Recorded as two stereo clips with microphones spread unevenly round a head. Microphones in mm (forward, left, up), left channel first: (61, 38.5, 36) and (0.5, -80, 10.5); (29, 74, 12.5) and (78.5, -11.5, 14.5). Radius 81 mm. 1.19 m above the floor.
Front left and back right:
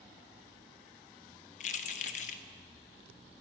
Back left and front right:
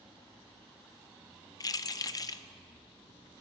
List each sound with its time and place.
1.6 s keys jangling: 70° left, 0.5 m